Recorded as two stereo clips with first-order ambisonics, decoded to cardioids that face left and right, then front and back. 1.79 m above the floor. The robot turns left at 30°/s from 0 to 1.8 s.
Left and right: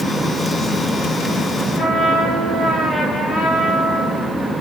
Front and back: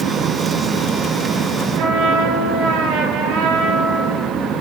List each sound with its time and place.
1.8 s a trumpet: 160° left, 8 m; by 4.3 s 155° left, 8 m